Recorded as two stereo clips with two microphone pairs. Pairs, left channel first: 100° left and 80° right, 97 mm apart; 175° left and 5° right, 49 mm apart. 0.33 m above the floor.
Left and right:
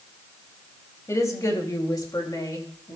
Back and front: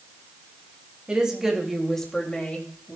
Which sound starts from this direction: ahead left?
A woman speaking, at 1.1 s.